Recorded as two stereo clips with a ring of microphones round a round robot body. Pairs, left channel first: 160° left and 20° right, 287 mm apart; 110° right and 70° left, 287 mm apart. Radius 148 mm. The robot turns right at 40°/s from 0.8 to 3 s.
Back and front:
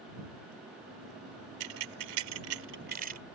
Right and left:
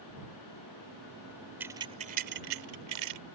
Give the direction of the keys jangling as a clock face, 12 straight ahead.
1 o'clock.